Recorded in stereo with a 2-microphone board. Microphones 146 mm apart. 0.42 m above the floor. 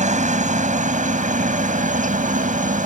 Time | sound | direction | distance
0.0 | a helicopter | 55° right (ahead or behind) | ?